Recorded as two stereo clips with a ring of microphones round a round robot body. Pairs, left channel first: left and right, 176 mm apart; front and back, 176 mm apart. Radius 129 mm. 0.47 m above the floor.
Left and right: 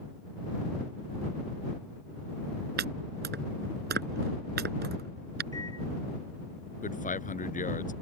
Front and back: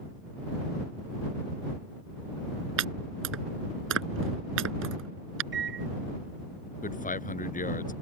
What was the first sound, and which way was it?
Chopping, 145° right.